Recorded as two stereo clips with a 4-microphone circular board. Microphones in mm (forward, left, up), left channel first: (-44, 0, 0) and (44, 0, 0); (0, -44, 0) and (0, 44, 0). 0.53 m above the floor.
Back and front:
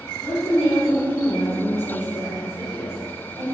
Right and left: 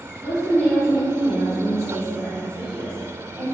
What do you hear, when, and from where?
0.2 s a woman speaking: 135° right, 0.8 m; by 3.4 s 165° left, 2.5 m